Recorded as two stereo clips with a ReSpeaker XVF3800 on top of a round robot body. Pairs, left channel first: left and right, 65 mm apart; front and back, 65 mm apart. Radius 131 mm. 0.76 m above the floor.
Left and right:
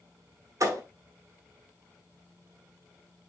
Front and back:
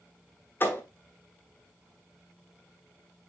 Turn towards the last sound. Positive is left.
turn(degrees=-55)